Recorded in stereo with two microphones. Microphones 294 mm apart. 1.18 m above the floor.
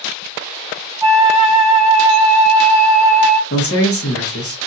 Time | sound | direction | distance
1.0 | a flute | 10° right (ahead or behind) | 1.0 m
3.5 | a man speaking | 50° left (ahead or behind) | 1.2 m